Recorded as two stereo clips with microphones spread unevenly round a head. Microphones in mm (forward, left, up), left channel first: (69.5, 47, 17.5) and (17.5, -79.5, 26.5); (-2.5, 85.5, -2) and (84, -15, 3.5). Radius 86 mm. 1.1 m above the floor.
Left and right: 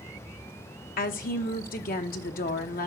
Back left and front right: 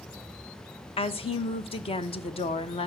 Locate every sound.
1.0 s a woman speaking: 85° left, 0.9 m